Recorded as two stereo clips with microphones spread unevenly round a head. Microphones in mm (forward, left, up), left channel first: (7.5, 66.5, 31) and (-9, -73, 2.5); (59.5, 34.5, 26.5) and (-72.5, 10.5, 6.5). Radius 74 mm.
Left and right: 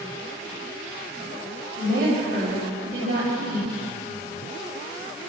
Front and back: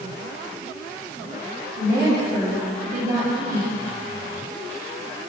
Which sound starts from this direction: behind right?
A woman speaking, at 1.8 s.